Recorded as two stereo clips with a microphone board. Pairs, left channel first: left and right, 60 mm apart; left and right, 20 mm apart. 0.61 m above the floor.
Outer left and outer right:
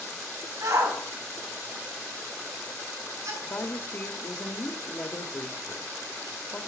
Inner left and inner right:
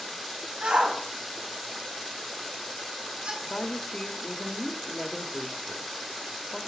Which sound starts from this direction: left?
A woman speaking, at 3.4 s.